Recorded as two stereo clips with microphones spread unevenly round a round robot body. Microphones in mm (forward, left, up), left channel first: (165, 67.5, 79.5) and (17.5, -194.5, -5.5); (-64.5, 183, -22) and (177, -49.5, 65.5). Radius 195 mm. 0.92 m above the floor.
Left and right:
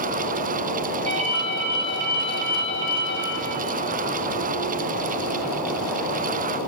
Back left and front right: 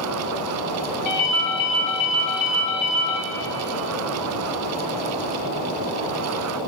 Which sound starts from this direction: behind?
A ringtone, at 1.1 s.